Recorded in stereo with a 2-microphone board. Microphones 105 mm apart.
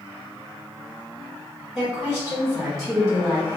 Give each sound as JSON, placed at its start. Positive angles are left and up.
{"t": 1.8, "sound": "a woman speaking", "side_deg": 0, "distance_m": 1.3}